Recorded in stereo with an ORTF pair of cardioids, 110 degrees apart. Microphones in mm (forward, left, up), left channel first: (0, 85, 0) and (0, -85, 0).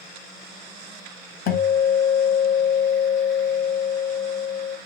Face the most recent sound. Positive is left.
turn(degrees=65)